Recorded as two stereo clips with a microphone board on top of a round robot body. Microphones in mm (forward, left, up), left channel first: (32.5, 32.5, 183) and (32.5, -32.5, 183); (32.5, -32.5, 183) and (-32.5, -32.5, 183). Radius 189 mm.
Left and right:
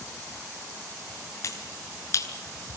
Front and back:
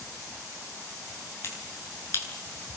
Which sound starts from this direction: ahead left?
A finger snap, at 1.4 s.